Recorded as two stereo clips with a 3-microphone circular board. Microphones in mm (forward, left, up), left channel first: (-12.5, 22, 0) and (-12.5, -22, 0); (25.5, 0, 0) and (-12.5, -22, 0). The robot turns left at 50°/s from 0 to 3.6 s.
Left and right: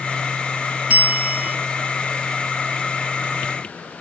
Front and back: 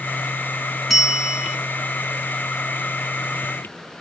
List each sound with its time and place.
0.9 s a bell: 65° right, 0.9 m; by 1.6 s 95° right, 0.9 m